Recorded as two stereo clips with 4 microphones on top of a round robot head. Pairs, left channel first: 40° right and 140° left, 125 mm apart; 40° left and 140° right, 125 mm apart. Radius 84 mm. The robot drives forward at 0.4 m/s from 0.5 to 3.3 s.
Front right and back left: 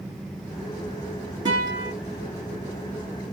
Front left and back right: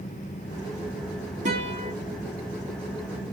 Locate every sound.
1.4 s a guitar: 165° right, 2.5 m; by 1.9 s 170° right, 2.5 m